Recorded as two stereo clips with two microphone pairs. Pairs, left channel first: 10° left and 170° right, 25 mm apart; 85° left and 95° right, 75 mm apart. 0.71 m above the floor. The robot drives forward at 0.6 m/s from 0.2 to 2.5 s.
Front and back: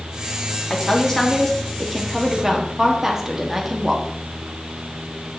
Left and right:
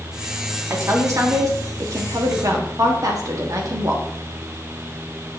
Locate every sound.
0.7 s a woman speaking: 55° right, 1.6 m; by 4.0 s 105° right, 1.5 m